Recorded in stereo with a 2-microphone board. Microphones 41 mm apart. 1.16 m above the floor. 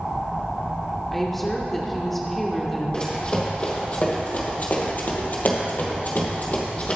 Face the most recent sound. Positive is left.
turn(degrees=35)  # may be behind; listen again after turning